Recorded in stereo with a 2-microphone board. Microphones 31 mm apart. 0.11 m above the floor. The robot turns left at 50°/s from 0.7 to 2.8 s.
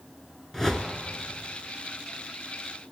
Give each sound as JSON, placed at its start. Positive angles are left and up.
{"t": 0.5, "sound": "a whoosh", "side_deg": 10, "distance_m": 0.8}